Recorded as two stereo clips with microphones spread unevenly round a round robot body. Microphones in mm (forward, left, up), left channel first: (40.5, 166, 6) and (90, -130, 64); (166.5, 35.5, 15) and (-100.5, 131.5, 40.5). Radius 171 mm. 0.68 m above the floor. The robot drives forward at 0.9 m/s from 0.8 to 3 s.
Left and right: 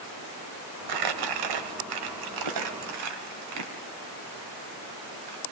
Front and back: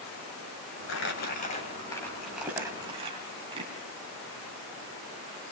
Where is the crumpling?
75° right, 2 m; by 5.4 s 125° right, 2.5 m.